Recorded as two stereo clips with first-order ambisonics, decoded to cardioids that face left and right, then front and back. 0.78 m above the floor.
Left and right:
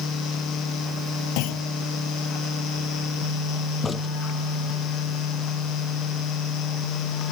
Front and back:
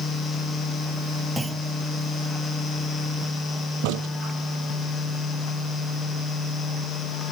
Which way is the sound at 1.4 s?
100° left.